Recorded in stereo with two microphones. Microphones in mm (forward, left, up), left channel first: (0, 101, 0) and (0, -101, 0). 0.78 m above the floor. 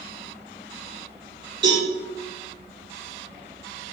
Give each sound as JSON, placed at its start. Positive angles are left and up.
{"t": 1.6, "sound": "a cowbell", "side_deg": -60, "distance_m": 1.8}